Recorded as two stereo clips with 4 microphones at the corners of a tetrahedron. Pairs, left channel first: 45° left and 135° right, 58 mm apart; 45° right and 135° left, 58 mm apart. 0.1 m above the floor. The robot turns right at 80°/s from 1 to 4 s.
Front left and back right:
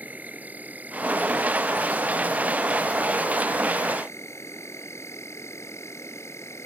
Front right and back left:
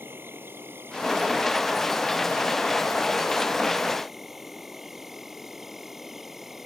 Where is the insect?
170° left; by 6.7 s 50° left.